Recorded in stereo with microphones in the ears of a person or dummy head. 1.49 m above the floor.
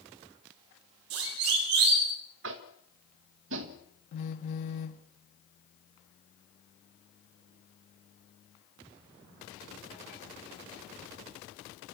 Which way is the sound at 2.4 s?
80° right.